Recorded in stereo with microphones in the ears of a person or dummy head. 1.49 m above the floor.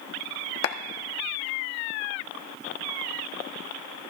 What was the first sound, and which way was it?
A clap, 75° left (ahead or behind).